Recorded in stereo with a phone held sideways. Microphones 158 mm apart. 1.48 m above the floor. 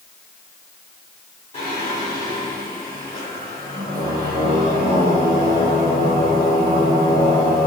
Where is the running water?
No running water in this recording.